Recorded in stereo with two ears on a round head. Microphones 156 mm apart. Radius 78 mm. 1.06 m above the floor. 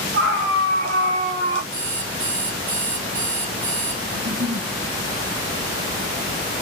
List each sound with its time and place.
0.1 s a scream: 55° right (ahead or behind), 2.5 m; by 1.6 s 35° right (ahead or behind), 3.5 m
1.7 s an alarm clock: 55° right (ahead or behind), 2.5 m
4.1 s a giggle: 60° right (ahead or behind), 1.4 m